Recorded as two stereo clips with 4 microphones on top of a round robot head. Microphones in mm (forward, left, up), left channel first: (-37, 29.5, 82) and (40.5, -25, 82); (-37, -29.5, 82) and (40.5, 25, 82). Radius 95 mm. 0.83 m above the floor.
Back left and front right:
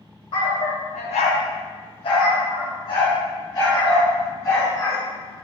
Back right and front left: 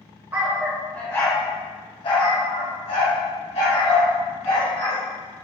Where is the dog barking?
110° left, 1.4 m; by 5.0 s 155° right, 4.5 m.